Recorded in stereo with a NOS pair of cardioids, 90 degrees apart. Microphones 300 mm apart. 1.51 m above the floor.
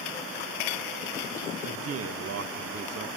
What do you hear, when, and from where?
1.6 s a man speaking: 50° right, 1.7 m